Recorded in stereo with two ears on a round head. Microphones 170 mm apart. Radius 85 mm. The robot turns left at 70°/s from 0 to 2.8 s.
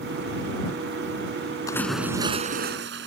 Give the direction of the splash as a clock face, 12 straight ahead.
11 o'clock.